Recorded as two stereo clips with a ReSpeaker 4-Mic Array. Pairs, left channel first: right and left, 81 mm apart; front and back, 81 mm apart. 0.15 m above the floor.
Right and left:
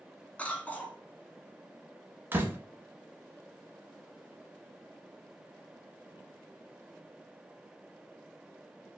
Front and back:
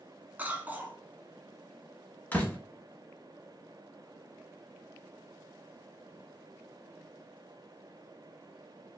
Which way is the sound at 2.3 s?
55° left.